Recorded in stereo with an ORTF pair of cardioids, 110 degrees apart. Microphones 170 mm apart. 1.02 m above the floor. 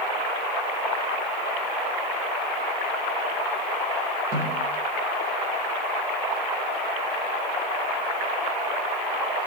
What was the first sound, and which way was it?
A snare drum, 55° right.